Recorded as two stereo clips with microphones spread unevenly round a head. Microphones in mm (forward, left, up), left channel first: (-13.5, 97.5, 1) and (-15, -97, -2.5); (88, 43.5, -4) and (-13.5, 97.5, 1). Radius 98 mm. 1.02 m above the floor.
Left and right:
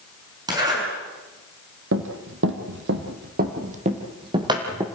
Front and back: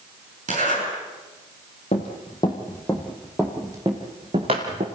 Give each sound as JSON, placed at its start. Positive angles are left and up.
{"t": 0.5, "sound": "a zipper", "azimuth_deg": -160, "distance_m": 7.5}
{"t": 1.9, "sound": "running footsteps", "azimuth_deg": -75, "distance_m": 2.5}